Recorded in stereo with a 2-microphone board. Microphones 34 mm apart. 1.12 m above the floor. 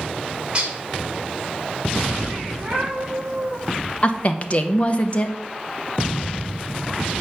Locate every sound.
0.5 s dishes clattering: 30° right (ahead or behind), 2.5 m
2.5 s a cat meowing: 25° right (ahead or behind), 6 m
4.0 s a woman speaking: 40° left (ahead or behind), 1.0 m